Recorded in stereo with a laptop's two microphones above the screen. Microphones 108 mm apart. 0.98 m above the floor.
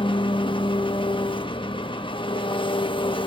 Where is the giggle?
I don't hear a giggle.